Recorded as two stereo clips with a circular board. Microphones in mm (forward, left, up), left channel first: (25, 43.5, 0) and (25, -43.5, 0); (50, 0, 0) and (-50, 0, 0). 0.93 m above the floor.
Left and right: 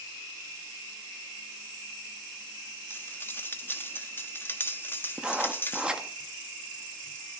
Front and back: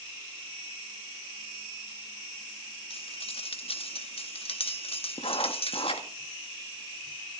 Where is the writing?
10° right, 1.7 m.